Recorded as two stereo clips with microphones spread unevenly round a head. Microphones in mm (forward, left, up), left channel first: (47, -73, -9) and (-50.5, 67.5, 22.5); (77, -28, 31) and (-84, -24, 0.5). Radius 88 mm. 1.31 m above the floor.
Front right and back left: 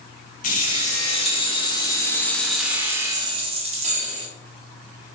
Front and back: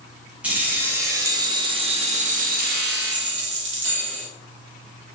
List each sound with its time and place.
0.4 s keys jangling: 100° right, 1.4 m; by 4.3 s 165° left, 1.2 m